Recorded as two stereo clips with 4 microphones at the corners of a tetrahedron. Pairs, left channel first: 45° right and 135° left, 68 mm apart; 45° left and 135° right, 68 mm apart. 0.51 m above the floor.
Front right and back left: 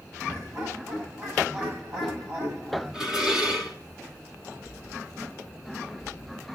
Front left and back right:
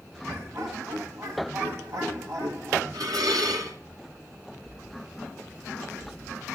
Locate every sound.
0.2 s laughter: 170° right, 6 m
2.9 s dishes clattering: 145° right, 3.5 m